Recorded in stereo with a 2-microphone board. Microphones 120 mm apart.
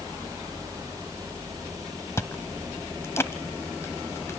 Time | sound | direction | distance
2.2 | chewing | 25° left (ahead or behind) | 0.9 m